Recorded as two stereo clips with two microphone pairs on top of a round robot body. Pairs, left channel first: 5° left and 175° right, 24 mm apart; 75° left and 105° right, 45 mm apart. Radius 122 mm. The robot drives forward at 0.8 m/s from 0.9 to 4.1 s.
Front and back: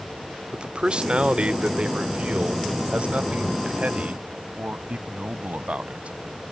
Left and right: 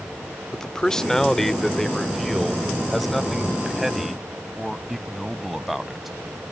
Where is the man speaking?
160° left; by 6.1 s 170° left.